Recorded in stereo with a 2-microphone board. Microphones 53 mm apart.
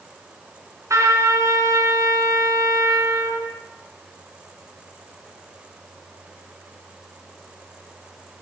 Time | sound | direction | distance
0.9 | a trumpet | 85° right | 3.5 m